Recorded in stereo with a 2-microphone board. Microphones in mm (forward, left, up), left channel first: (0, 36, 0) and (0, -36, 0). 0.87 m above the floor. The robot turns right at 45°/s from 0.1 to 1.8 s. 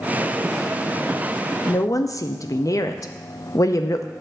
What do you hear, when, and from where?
1.7 s a woman speaking: 45° left (ahead or behind), 0.5 m; by 4.1 s 50° left (ahead or behind), 0.5 m